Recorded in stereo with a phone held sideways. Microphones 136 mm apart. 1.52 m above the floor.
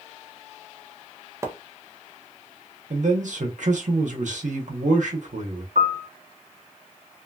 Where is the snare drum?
No snare drum in this recording.